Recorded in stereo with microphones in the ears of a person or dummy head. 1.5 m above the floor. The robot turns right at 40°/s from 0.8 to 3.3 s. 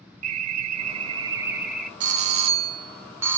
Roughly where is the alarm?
Ahead right.